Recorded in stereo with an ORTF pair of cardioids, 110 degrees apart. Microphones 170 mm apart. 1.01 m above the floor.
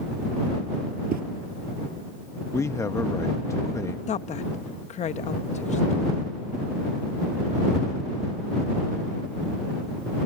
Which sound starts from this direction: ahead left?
A woman speaking, at 4.1 s.